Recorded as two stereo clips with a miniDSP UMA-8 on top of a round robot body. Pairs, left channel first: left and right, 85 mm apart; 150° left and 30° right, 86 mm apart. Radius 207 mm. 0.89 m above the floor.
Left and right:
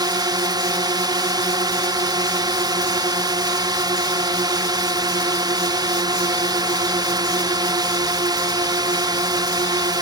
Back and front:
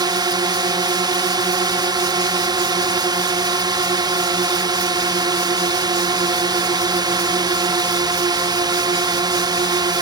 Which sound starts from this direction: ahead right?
A drone, at 0.0 s.